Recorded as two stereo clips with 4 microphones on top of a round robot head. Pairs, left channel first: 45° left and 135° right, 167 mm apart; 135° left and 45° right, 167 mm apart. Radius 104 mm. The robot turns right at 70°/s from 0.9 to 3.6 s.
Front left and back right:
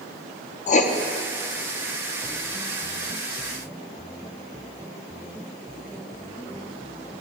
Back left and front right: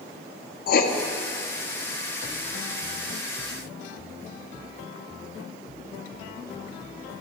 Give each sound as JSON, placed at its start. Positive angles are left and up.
{"t": 0.7, "sound": "writing", "azimuth_deg": 95, "distance_m": 0.6}